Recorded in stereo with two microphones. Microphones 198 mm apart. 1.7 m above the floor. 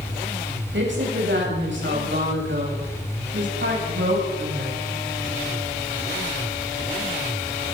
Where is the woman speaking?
70° right (ahead or behind), 9 m; by 4.8 s 75° right (ahead or behind), 11.5 m.